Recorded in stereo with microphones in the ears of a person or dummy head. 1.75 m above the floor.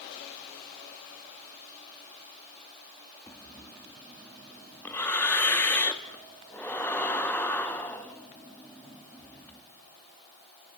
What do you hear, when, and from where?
3.3 s breathing: 10° left (ahead or behind), 1.5 m